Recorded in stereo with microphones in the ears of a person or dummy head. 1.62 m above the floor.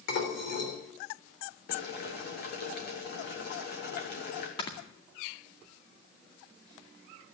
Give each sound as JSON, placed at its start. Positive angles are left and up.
{"t": 0.1, "sound": "dishes clattering", "side_deg": 60, "distance_m": 3.5}
{"t": 1.7, "sound": "boiling", "side_deg": 50, "distance_m": 2.5}
{"t": 4.6, "sound": "snoring", "side_deg": 25, "distance_m": 2.0}